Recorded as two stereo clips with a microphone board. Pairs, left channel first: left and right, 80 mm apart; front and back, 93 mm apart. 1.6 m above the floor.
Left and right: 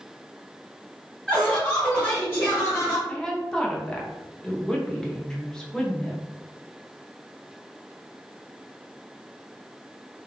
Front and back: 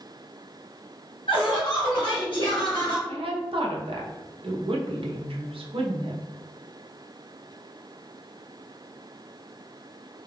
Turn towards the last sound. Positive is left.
turn(degrees=170)